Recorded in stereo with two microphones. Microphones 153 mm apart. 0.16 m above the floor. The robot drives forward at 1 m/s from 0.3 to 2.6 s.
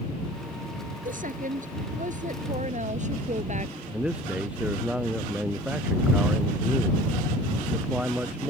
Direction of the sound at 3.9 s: 5° right (ahead or behind).